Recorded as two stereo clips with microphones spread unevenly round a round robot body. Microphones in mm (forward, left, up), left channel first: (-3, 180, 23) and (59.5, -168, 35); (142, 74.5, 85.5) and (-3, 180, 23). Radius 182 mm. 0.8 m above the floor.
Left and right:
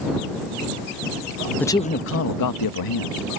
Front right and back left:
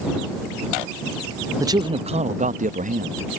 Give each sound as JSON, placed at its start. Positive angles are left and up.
{"t": 1.6, "sound": "a man speaking", "azimuth_deg": -175}